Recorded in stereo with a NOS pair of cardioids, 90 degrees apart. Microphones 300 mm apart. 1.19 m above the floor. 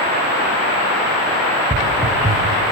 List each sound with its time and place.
1.7 s footsteps: 20° right, 5.5 m